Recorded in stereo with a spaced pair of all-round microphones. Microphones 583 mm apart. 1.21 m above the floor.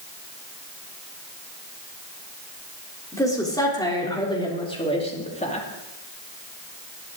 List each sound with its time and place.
3.1 s a woman speaking: 5° left (ahead or behind), 4 m; by 5.7 s 10° left (ahead or behind), 2.5 m